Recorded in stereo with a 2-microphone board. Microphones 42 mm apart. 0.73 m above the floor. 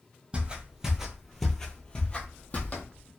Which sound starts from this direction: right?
Footsteps, at 0.3 s.